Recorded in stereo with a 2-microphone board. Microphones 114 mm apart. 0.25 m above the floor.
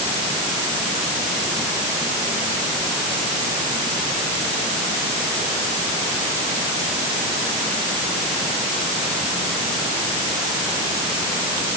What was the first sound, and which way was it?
Only background noise.